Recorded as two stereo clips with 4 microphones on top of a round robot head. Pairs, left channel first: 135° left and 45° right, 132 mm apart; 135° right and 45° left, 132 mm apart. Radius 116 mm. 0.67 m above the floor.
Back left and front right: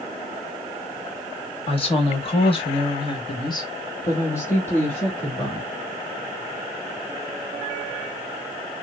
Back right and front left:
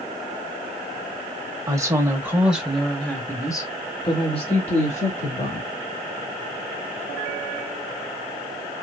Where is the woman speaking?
105° left, 1.7 m; by 5.7 s 140° right, 2 m.